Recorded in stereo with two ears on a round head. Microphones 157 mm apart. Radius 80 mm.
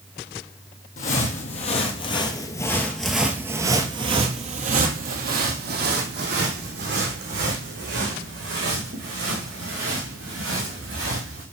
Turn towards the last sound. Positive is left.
turn(degrees=-80)